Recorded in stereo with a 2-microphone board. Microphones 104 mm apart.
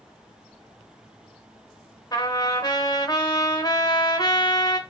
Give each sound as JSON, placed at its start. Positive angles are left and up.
{"t": 2.1, "sound": "a trumpet", "side_deg": 35, "distance_m": 1.3}